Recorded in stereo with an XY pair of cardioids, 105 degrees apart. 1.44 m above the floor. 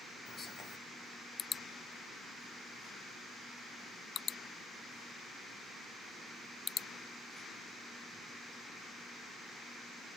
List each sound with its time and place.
0.3 s whispering: 50° left, 0.8 m